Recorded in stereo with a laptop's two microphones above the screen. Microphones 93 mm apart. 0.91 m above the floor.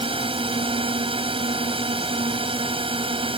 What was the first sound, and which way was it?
A drone, 80° right.